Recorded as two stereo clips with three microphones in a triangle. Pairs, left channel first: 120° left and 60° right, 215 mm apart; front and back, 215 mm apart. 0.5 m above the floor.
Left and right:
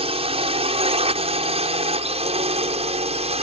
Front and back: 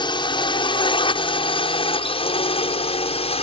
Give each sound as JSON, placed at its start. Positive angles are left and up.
{"t": 0.0, "sound": "a drone", "azimuth_deg": -40}